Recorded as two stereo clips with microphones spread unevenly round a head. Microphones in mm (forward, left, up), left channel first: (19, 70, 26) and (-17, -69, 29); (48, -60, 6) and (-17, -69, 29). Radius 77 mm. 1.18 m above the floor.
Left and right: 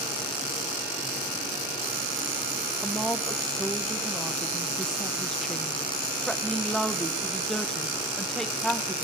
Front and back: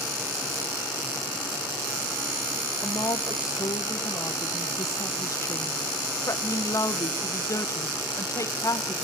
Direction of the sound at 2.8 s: 10° right.